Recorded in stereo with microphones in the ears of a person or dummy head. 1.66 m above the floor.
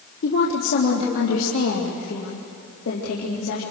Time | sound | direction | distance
0.2 | a woman speaking | 65° left (ahead or behind) | 2 m